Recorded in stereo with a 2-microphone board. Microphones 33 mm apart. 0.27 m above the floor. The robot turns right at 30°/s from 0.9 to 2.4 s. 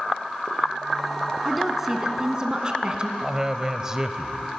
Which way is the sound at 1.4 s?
Centre (ahead or behind).